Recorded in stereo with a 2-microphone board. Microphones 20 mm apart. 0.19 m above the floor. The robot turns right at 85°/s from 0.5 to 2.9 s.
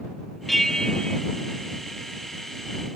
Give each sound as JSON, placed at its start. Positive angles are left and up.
{"t": 0.5, "sound": "a bell", "azimuth_deg": 15}